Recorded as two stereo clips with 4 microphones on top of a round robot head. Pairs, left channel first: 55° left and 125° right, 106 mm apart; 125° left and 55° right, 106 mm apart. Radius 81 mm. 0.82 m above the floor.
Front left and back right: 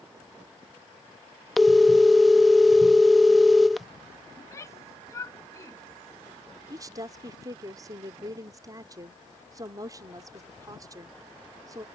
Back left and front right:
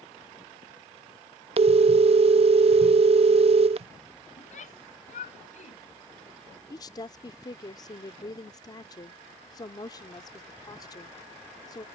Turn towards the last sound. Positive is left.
turn(degrees=175)